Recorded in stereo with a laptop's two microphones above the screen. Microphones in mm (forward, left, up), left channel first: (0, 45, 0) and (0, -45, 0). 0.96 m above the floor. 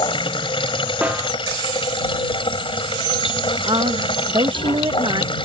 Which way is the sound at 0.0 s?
75° left (ahead or behind).